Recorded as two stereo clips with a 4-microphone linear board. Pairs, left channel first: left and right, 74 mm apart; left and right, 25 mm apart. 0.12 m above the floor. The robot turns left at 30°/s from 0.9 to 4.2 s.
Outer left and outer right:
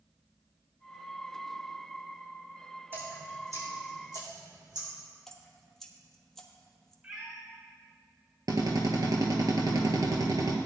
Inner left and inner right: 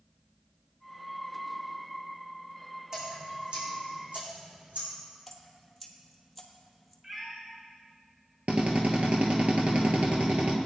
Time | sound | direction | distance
2.9 | dripping | 30° right (ahead or behind) | 4 m
5.3 | dripping | 5° left (ahead or behind) | 1.4 m
7.0 | a cat meowing | 20° right (ahead or behind) | 4.5 m
8.5 | a drill | 60° right (ahead or behind) | 1.6 m